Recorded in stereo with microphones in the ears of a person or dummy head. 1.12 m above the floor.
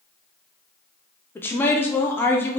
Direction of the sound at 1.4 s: 15° left (ahead or behind).